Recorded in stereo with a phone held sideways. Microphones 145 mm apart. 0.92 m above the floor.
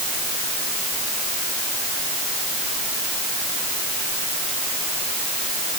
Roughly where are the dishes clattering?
I don't hear dishes clattering.